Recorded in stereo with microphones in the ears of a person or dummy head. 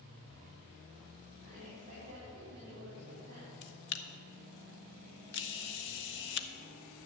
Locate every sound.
1.4 s a woman speaking: 40° right (ahead or behind), 3.5 m
3.6 s a camera shutter: 55° left (ahead or behind), 0.6 m